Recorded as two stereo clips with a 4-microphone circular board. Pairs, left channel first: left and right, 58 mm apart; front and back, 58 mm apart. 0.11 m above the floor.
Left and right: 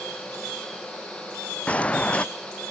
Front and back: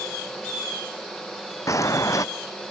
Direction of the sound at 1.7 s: 25° left.